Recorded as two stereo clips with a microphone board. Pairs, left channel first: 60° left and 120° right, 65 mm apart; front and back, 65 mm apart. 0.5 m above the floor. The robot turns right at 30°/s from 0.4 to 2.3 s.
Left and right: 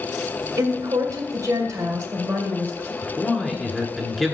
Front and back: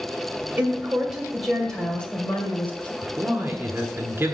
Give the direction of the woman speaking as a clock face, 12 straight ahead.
4 o'clock.